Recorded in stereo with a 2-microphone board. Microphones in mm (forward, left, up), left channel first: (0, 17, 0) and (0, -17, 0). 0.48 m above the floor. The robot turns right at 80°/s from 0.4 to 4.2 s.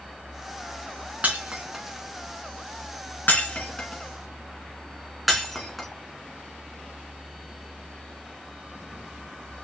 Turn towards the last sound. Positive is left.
turn(degrees=-5)  # may be behind; listen again after turning